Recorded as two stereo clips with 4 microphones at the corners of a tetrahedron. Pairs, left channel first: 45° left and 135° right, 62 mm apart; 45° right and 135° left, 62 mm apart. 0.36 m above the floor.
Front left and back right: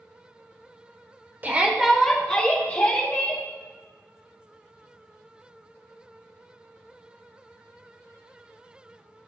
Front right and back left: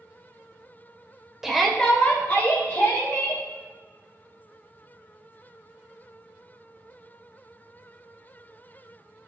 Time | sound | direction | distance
1.4 | a shout | 145° right | 1.0 m